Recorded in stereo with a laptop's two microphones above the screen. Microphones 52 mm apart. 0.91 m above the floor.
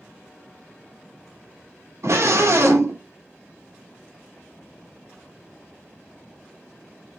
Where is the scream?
70° right (ahead or behind), 2.5 m.